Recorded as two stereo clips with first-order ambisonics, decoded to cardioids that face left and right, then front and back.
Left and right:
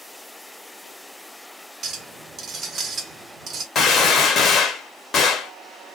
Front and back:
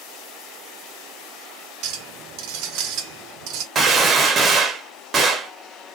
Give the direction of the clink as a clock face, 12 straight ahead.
5 o'clock.